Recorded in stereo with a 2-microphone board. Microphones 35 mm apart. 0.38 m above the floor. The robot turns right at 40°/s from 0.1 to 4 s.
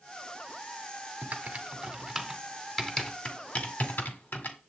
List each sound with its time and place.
1.2 s typing on a keyboard: 40° right (ahead or behind), 1.9 m; by 4.6 s 60° left (ahead or behind), 1.9 m